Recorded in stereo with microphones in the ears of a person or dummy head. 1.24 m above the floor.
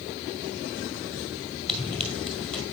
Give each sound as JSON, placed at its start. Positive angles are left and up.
{"t": 1.7, "sound": "running footsteps", "side_deg": 5, "distance_m": 1.8}